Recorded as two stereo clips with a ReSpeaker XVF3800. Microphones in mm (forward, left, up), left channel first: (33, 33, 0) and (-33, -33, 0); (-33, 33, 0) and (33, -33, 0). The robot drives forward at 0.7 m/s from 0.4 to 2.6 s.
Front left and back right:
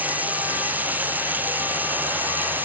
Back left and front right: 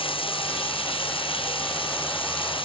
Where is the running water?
155° left.